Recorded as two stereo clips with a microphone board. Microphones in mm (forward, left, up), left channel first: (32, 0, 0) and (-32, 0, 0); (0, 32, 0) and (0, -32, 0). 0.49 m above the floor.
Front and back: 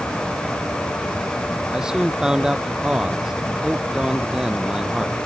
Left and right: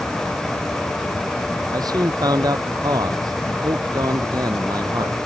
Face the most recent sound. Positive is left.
turn(degrees=-100)